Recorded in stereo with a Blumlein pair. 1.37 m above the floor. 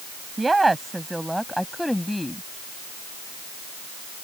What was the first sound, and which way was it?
A woman speaking, 10° right.